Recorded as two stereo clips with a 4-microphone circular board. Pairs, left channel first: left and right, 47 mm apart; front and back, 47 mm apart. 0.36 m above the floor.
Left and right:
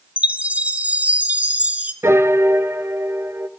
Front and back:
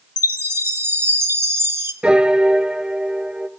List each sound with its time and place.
0.2 s a chime: 150° right, 1.4 m
2.0 s a piano: 110° right, 1.3 m